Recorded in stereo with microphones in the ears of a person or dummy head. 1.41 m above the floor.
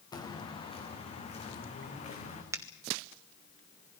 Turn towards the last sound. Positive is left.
turn(degrees=-10)  # may be behind; listen again after turning